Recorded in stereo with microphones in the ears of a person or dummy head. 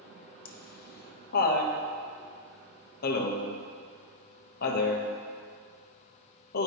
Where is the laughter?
55° left (ahead or behind), 1.3 m.